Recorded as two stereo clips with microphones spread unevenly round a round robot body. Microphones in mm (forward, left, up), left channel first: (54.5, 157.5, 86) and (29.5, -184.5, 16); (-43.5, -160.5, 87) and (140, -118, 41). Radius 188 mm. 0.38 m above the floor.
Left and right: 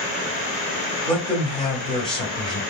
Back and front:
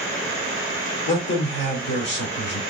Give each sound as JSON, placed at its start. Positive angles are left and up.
{"t": 1.1, "sound": "a man speaking", "azimuth_deg": -175, "distance_m": 1.4}